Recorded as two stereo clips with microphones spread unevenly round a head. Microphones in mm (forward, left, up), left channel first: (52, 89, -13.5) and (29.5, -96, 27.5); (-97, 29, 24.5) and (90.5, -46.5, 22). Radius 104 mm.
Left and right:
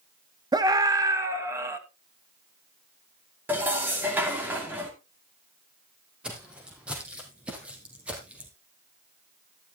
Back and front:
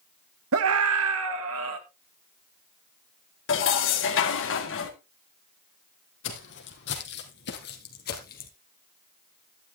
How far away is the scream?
About 1.9 m.